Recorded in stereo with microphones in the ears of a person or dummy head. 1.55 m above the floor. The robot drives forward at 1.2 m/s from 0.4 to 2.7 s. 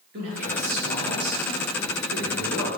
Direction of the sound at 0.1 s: 55° right (ahead or behind).